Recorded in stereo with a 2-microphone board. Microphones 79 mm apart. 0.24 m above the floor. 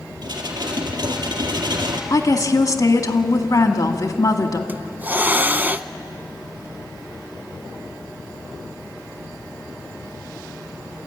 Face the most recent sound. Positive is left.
turn(degrees=-25)  # may be behind; listen again after turning